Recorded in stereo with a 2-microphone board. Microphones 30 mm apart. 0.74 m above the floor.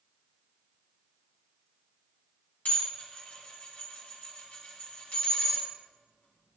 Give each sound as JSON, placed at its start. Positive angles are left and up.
{"t": 2.6, "sound": "dishes clattering", "side_deg": 70, "distance_m": 4.0}